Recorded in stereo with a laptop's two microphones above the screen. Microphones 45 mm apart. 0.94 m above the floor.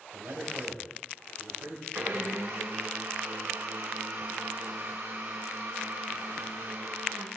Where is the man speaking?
70° right (ahead or behind), 6 m.